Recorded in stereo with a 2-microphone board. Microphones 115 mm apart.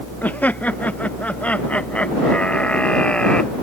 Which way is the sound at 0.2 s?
15° left (ahead or behind).